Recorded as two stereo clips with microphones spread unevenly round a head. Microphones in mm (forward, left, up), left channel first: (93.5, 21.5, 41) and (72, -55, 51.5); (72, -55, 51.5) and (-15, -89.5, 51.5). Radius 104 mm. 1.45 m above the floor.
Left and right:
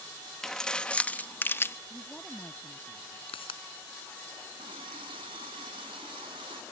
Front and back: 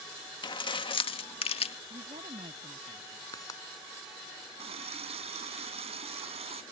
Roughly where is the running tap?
Behind right.